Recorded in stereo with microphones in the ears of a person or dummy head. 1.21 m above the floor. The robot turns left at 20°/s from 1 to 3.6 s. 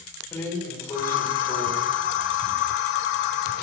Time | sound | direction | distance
0.3 | a drawer | 15° left (ahead or behind) | 1.5 m